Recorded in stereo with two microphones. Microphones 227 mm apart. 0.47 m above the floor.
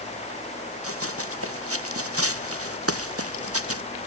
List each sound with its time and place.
0.8 s running footsteps: 80° right; by 3.8 s 85° right